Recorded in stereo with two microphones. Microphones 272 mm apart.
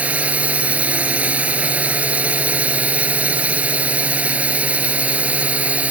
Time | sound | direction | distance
0.0 | a drone | 5° right (ahead or behind) | ?